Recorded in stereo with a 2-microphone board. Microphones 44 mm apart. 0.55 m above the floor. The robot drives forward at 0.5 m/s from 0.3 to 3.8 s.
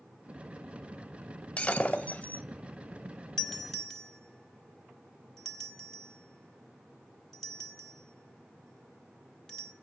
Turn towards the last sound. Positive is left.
turn(degrees=10)  # may be behind; listen again after turning